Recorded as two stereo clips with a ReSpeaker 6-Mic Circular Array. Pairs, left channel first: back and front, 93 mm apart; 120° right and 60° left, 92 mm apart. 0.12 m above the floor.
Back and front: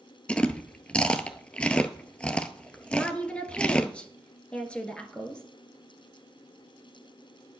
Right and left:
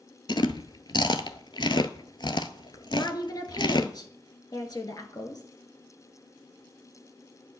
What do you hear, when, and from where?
0.3 s chewing: 105° right, 0.6 m
2.9 s a woman speaking: 105° right, 1.5 m